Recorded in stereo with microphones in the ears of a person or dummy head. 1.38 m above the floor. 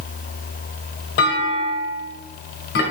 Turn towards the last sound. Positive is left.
turn(degrees=60)  # may be behind; listen again after turning